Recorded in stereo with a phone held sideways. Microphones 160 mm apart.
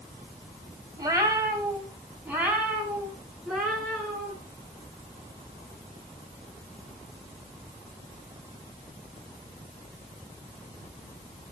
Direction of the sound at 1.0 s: 25° right (ahead or behind).